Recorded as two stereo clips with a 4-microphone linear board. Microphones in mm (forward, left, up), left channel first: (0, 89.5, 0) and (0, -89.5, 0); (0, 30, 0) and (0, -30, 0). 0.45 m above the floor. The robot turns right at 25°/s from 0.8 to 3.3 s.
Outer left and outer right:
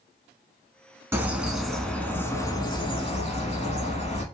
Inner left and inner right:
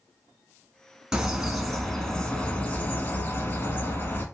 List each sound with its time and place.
1.1 s a bird: 15° right, 0.7 m; by 4.2 s 40° left, 0.7 m